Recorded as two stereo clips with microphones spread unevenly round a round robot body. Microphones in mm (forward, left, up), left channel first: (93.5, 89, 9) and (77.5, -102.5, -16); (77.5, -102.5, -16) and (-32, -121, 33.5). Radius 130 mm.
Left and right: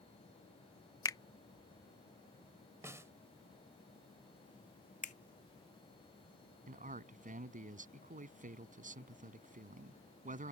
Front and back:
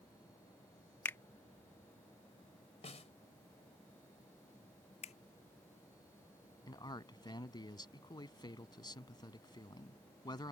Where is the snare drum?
15° right.